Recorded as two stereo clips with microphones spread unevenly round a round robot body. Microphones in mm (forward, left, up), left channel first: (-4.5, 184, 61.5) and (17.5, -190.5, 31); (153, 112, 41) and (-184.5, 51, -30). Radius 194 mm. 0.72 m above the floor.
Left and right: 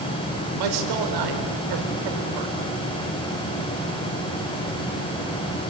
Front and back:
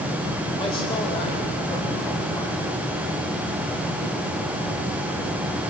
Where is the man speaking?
70° right, 3.5 m.